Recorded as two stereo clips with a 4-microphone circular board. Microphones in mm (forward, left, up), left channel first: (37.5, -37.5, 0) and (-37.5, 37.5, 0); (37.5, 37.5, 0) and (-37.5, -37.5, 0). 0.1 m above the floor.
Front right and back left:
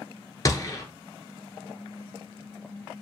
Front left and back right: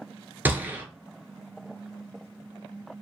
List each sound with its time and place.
0.5 s a gunshot: 75° right, 0.6 m